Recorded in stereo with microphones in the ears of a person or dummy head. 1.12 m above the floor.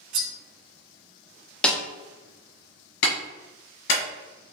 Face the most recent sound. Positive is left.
turn(degrees=60)  # may be behind; listen again after turning